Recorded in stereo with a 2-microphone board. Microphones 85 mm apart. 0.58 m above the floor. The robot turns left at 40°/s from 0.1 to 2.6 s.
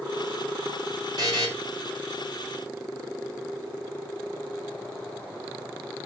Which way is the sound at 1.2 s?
60° right (ahead or behind).